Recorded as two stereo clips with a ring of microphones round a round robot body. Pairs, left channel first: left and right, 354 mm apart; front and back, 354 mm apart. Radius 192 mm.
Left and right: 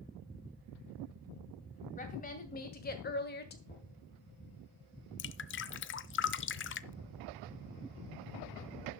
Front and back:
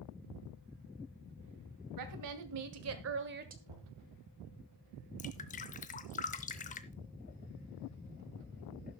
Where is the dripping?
55° left, 0.6 m.